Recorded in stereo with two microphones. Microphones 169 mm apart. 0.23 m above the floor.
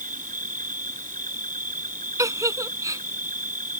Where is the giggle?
20° right (ahead or behind).